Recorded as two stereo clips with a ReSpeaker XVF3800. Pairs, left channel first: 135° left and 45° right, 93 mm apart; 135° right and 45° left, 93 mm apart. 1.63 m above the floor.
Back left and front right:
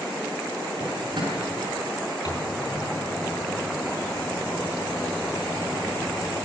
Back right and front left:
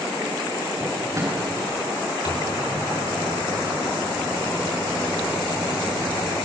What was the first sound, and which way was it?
A drawer, 10° right.